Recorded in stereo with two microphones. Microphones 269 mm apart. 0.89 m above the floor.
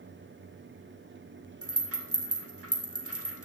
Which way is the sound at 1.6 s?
60° right (ahead or behind).